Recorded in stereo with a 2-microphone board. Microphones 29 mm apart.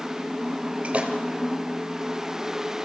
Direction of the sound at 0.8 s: 45° right (ahead or behind).